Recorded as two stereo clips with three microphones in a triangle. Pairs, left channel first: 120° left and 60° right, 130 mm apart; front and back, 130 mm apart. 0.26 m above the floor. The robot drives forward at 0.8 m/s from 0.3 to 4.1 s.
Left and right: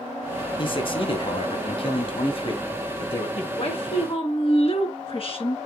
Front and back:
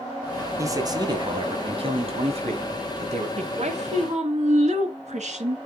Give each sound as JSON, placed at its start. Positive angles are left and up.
{"t": 0.6, "sound": "a man speaking", "azimuth_deg": 130, "distance_m": 1.8}
{"t": 3.4, "sound": "a woman speaking", "azimuth_deg": 155, "distance_m": 2.0}